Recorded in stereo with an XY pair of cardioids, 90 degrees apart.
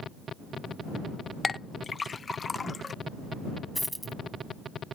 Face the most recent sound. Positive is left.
turn(degrees=-5)